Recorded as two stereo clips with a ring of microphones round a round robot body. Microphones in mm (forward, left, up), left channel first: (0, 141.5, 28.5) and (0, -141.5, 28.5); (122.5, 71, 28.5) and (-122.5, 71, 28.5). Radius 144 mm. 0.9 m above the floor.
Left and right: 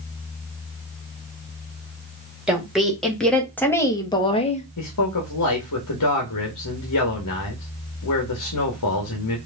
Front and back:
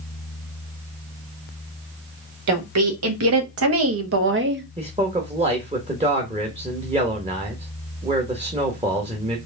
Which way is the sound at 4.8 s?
115° left.